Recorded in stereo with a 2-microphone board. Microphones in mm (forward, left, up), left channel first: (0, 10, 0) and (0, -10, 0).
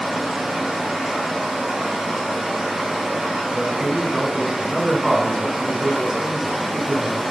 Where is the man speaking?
10° right (ahead or behind), 1.7 m.